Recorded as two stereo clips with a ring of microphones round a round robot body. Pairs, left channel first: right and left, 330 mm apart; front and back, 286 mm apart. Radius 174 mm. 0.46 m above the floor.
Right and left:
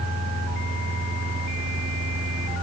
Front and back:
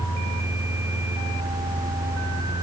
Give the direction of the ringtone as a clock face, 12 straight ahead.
I don't hear a ringtone.